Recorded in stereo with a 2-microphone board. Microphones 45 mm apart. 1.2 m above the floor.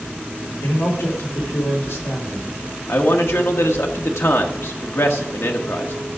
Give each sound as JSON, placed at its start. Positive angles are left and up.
{"t": 0.6, "sound": "a man speaking", "side_deg": 80, "distance_m": 3.5}
{"t": 2.9, "sound": "a man speaking", "side_deg": 80, "distance_m": 1.4}